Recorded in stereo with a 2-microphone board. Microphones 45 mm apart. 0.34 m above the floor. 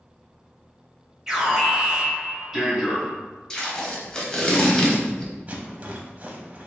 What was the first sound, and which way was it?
An alarm, 10° right (ahead or behind).